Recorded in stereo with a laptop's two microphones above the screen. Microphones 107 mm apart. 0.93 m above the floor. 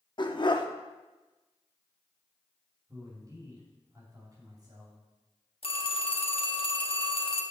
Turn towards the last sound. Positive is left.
turn(degrees=60)  # may be behind; listen again after turning